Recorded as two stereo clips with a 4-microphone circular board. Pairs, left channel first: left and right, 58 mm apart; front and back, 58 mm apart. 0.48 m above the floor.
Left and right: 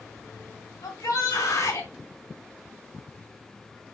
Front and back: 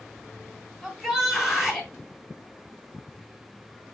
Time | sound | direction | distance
0.8 | a shout | 100° left | 3 m